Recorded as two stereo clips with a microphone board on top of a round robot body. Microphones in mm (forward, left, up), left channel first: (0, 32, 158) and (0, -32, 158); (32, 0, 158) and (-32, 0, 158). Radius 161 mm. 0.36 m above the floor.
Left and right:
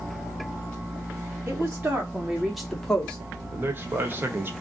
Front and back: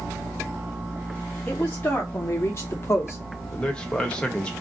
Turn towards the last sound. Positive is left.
turn(degrees=-65)